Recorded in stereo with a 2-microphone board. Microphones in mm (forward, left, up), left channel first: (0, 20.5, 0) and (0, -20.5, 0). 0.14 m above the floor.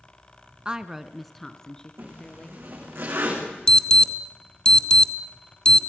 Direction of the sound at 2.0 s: 70° right (ahead or behind).